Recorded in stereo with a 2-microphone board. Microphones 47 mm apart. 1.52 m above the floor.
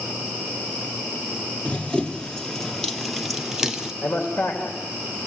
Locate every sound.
1.6 s running footsteps: 25° left (ahead or behind), 1.6 m; by 3.9 s 15° right (ahead or behind), 1.5 m
4.0 s a man speaking: 70° left (ahead or behind), 3 m